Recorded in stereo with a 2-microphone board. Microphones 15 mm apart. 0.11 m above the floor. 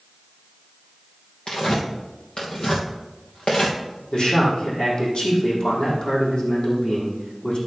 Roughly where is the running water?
I don't hear running water.